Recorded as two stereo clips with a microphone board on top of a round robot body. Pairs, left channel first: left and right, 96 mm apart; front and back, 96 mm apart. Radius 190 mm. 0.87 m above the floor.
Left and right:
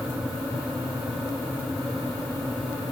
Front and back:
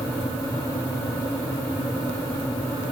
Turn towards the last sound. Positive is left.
No sound to turn to.